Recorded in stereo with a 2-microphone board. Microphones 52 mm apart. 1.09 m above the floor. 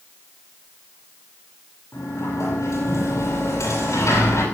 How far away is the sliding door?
About 8.5 m.